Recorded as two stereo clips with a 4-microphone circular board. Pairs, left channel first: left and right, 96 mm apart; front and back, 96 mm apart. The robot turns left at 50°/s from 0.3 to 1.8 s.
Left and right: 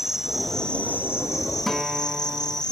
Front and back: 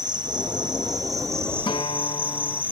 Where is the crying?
No crying in this recording.